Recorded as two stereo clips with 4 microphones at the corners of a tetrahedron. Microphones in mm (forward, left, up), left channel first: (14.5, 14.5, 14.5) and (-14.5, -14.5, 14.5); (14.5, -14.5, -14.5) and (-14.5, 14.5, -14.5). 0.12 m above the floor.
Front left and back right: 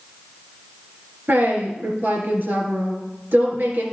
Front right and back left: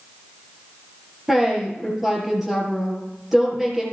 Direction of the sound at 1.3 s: 145° right.